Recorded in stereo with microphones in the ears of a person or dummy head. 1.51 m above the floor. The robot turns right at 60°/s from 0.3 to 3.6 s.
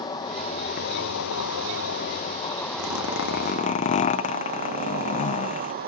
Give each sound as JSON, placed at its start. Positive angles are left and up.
{"t": 0.0, "sound": "an insect", "azimuth_deg": 20}
{"t": 2.8, "sound": "a zipper", "azimuth_deg": 90}